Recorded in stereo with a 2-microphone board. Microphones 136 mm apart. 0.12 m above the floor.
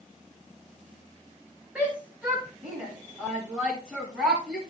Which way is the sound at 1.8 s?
10° right (ahead or behind).